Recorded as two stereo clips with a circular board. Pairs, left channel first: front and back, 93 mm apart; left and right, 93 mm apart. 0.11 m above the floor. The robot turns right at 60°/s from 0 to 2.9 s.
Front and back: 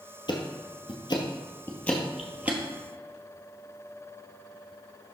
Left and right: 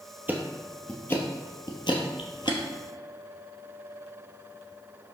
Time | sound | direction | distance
0.3 | ticking | 20° right | 1.2 m